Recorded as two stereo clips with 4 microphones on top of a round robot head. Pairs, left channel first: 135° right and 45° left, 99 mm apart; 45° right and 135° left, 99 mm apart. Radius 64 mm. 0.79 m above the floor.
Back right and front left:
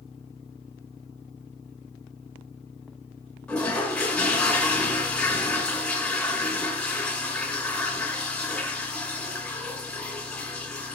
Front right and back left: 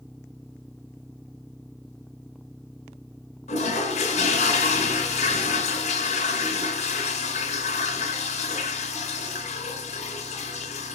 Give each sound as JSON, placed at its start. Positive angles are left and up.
{"t": 3.5, "sound": "a toilet flushing", "azimuth_deg": -55, "distance_m": 2.5}